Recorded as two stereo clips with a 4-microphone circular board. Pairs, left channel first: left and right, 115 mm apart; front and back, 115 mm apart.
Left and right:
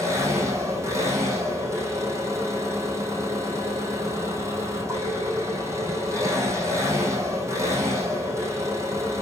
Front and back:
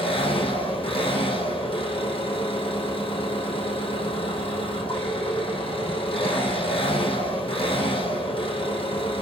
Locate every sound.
0.0 s an engine running: 30° right, 5.5 m